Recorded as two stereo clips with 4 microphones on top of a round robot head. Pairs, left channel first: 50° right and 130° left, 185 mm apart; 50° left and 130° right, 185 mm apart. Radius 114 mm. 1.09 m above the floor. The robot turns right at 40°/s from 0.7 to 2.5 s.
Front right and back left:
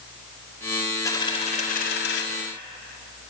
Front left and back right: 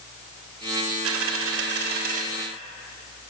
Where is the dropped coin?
125° right, 1.1 m; by 2.2 s 75° right, 1.1 m.